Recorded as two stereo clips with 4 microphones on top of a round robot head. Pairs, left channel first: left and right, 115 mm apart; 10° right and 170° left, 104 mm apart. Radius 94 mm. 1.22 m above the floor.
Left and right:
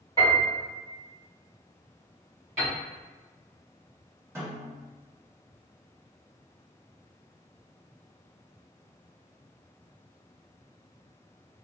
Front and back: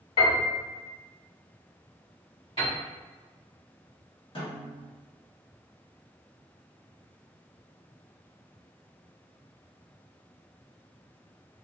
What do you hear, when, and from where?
0.2 s a piano: 20° left, 1.2 m
2.6 s a piano: 60° right, 1.3 m
4.3 s a snare drum: 25° right, 1.1 m